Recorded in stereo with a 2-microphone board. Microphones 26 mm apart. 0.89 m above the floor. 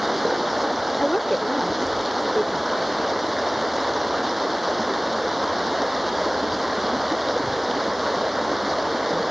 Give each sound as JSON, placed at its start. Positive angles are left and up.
{"t": 0.0, "sound": "running water", "side_deg": -5}
{"t": 1.0, "sound": "a woman speaking", "side_deg": 45}